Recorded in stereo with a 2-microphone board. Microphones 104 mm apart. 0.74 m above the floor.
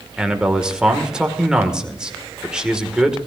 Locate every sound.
0.2 s a man speaking: 5° right (ahead or behind), 1.9 m